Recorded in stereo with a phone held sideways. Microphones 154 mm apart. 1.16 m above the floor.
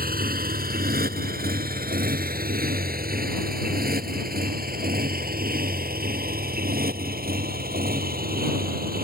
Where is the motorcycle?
75° right (ahead or behind).